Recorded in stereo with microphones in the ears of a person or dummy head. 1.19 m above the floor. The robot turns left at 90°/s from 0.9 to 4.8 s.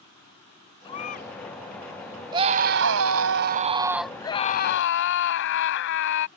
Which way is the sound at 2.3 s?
20° right.